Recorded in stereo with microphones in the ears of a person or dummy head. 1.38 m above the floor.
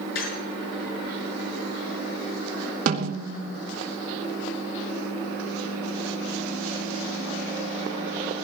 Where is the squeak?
65° left (ahead or behind), 7 m.